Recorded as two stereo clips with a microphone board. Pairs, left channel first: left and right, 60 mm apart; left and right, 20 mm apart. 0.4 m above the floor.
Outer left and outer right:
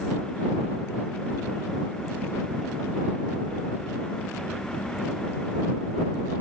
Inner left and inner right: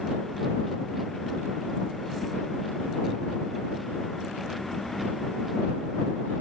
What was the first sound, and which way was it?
Only background noise.